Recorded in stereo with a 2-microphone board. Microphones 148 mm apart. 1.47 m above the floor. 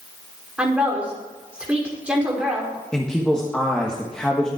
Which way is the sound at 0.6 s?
10° right (ahead or behind).